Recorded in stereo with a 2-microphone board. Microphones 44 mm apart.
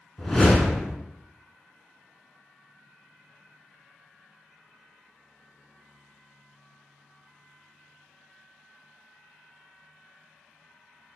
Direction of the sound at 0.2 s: 10° left (ahead or behind).